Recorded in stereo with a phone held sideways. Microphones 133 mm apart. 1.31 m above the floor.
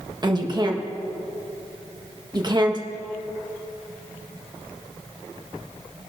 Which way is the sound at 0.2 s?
30° right (ahead or behind).